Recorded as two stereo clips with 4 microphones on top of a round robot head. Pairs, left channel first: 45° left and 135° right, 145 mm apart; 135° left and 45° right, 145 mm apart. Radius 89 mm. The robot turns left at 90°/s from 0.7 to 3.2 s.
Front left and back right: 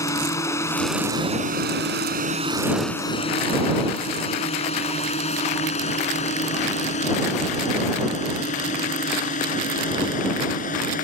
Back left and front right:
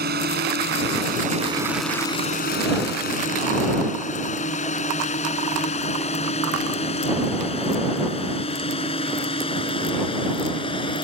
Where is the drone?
25° right; by 11.1 s 80° left.